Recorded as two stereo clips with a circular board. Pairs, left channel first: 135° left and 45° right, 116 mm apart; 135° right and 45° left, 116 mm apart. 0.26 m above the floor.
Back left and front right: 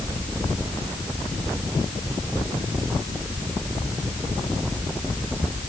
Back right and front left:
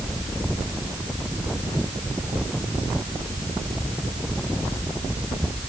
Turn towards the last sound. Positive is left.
No sound to turn to.